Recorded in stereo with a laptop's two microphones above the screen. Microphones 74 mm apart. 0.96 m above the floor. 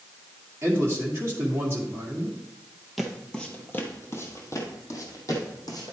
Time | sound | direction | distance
0.6 | a man speaking | 30° right (ahead or behind) | 1.9 m
3.0 | footsteps | centre (ahead or behind) | 1.0 m